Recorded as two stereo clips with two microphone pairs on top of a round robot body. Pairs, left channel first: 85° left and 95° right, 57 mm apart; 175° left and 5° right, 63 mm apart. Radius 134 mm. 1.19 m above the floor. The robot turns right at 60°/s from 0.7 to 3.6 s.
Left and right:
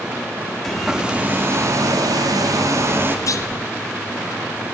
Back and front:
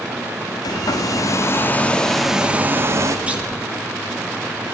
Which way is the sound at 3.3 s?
65° left.